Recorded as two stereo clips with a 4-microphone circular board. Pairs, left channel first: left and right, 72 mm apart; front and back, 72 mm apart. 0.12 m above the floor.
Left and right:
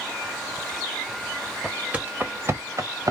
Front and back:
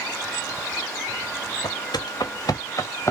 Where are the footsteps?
10° right, 1.0 m; by 3.1 s 55° right, 1.3 m.